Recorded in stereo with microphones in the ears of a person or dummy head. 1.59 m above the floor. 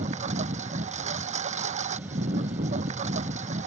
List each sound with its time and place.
0.0 s a lawn mower: 45° right (ahead or behind)